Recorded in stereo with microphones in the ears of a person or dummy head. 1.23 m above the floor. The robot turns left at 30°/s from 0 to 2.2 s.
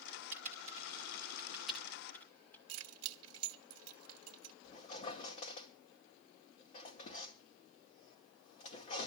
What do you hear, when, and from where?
0.3 s typing on a keyboard: 45° right (ahead or behind), 2.0 m; by 2.6 s 10° left (ahead or behind), 2.0 m
2.7 s keys jangling: 80° right, 1.0 m
4.6 s a squeak: 40° left (ahead or behind), 2 m